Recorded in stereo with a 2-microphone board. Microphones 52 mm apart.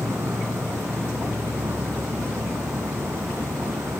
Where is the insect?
80° right.